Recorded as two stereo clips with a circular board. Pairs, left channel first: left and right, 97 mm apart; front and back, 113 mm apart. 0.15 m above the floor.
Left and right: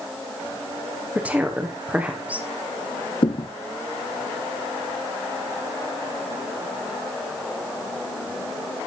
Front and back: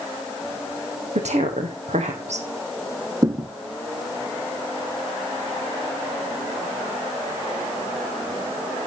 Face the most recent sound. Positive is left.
turn(degrees=120)